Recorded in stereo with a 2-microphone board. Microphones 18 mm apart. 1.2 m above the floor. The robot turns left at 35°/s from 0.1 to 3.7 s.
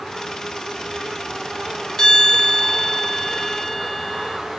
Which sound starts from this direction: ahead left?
A bell, at 2.0 s.